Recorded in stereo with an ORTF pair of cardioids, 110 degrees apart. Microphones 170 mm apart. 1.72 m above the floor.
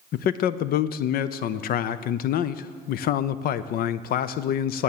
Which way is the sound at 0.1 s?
60° left.